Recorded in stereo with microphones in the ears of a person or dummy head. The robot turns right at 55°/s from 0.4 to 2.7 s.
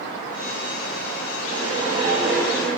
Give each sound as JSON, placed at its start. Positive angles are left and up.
{"t": 1.5, "sound": "a whoosh", "azimuth_deg": -60, "distance_m": 7.0}